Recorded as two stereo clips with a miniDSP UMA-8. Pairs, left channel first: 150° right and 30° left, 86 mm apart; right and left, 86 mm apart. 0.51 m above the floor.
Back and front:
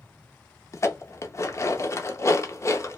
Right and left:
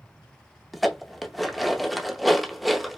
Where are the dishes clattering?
Straight behind, 0.6 m.